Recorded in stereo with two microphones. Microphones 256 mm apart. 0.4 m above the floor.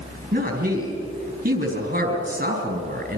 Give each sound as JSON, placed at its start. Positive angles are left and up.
{"t": 0.3, "sound": "a woman speaking", "side_deg": -40, "distance_m": 4.5}